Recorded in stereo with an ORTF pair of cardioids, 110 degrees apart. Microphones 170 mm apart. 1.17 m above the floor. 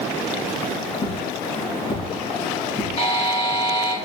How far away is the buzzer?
About 4 m.